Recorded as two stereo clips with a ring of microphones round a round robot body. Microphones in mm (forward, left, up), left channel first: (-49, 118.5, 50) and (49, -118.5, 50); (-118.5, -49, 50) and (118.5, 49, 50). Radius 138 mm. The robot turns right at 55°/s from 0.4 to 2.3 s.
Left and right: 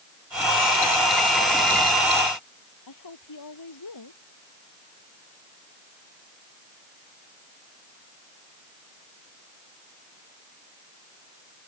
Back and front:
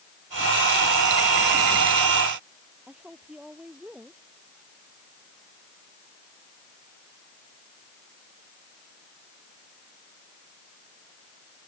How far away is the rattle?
No rattle in this recording.